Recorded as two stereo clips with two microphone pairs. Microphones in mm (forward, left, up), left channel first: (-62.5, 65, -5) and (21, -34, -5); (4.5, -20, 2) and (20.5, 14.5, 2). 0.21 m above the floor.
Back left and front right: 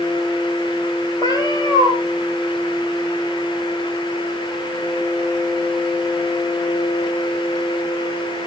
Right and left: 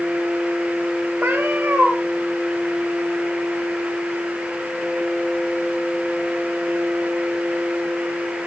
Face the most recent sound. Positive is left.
turn(degrees=75)